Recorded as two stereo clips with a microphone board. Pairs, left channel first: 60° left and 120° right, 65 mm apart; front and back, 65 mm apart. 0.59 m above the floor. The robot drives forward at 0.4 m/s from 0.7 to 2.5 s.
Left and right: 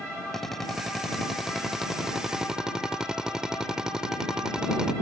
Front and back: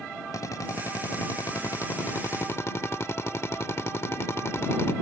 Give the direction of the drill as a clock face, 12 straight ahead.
1 o'clock.